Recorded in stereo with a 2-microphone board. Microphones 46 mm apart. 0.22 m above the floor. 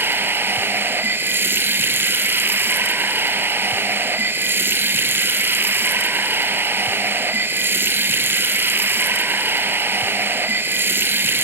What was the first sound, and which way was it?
Running water, 50° right (ahead or behind).